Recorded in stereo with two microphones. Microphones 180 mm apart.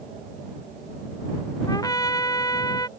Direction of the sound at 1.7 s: 20° left (ahead or behind).